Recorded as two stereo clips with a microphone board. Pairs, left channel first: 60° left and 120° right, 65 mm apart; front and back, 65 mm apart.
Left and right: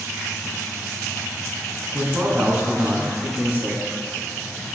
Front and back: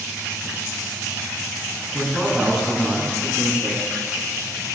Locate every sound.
1.9 s a man speaking: 115° right, 1.3 m